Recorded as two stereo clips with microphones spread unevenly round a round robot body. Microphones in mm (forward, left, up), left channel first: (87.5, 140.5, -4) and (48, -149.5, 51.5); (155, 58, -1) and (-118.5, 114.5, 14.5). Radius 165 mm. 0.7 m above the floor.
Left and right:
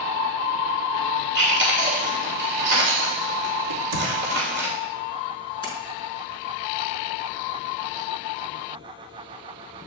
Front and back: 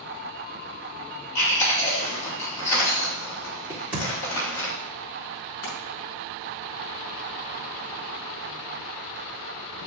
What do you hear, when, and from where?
1.4 s chewing: 45° right, 3 m
3.7 s a crack: 105° right, 1.8 m
5.6 s a splash: 5° left, 4 m